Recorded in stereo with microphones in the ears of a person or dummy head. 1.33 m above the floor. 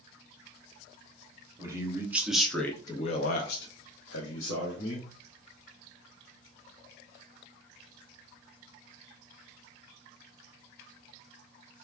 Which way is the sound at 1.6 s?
25° right (ahead or behind).